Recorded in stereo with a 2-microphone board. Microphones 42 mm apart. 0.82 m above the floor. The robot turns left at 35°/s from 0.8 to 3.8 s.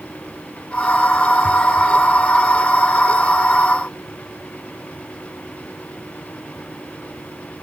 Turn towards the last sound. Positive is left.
No sound to turn to.